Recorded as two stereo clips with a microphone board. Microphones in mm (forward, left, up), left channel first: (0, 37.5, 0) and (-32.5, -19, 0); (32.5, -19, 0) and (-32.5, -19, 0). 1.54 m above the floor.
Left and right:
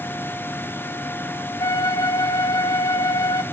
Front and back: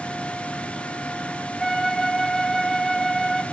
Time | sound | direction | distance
1.6 | a flute | 85° left | 0.7 m